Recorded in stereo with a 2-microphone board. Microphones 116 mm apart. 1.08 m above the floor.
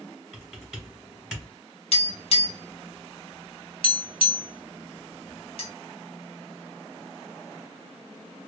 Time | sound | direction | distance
0.3 | typing on a keyboard | 5° right (ahead or behind) | 1.2 m
1.9 | tapping | 55° left (ahead or behind) | 1.0 m